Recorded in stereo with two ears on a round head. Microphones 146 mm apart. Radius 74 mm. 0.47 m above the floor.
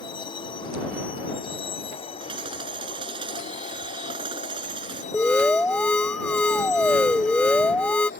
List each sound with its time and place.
0.0 s a vehicle: 30° left (ahead or behind); by 8.2 s 55° left (ahead or behind)
2.2 s hammering: 30° right (ahead or behind)
5.1 s an alarm: 10° left (ahead or behind)